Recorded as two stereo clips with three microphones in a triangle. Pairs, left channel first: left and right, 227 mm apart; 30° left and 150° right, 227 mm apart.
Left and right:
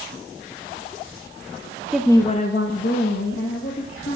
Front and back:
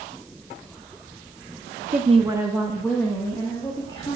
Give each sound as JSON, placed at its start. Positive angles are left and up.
{"t": 1.9, "sound": "a woman speaking", "azimuth_deg": -175, "distance_m": 0.6}